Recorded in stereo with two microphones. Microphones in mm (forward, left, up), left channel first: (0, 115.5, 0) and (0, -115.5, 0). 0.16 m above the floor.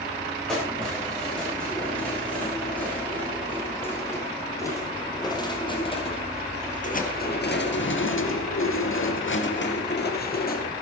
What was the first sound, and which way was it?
Keys jangling, centre (ahead or behind).